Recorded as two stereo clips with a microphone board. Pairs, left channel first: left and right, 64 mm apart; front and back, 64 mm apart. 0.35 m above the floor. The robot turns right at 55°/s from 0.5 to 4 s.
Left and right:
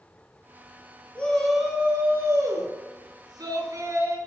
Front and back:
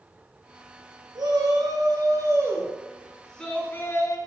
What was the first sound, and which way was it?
A shout, 160° left.